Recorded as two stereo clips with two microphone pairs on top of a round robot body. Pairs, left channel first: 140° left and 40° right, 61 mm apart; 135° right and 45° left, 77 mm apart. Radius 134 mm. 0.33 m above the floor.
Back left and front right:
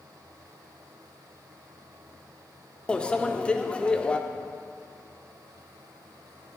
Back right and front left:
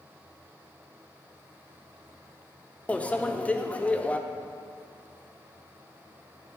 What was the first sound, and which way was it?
A microwave, 150° right.